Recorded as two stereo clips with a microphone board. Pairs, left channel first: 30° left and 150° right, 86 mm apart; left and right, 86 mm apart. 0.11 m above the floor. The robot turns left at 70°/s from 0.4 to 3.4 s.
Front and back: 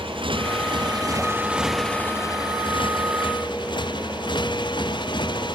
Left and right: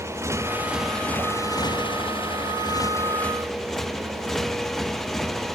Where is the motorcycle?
145° right; by 5.6 s 5° left.